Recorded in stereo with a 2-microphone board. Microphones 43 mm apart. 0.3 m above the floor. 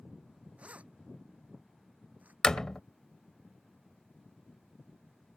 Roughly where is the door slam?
Centre.